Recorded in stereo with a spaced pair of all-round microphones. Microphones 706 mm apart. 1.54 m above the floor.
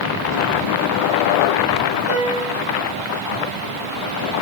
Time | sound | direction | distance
2.1 | a piano | 70° left (ahead or behind) | 7 m